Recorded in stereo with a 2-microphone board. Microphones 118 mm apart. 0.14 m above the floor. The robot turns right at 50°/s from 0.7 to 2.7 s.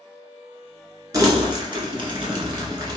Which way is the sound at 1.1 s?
30° right (ahead or behind).